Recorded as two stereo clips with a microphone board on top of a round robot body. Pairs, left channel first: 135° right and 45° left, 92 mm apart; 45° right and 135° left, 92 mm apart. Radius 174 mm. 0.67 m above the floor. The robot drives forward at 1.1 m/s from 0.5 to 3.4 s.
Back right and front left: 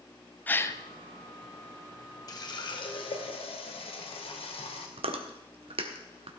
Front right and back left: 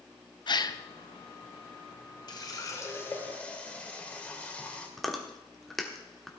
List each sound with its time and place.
0.5 s a gasp: 70° right, 1.0 m; by 0.8 s 95° right, 0.9 m
2.3 s a running tap: 90° right, 2.0 m; by 4.9 s 120° right, 2.5 m
5.0 s chewing: 45° left, 1.5 m